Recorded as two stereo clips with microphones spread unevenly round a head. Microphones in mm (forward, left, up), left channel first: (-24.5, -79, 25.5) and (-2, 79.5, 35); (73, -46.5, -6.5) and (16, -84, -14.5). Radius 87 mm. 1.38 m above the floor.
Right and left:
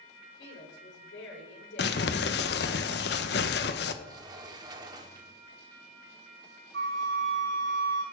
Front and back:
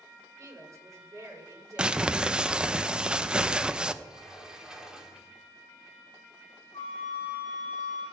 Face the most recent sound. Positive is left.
turn(degrees=100)